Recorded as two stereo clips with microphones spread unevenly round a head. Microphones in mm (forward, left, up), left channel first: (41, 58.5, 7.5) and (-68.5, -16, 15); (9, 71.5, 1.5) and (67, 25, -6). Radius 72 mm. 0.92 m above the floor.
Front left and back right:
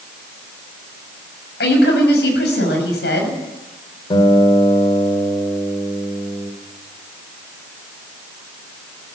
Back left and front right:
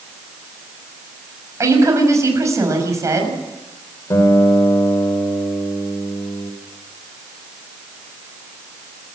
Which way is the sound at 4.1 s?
95° left.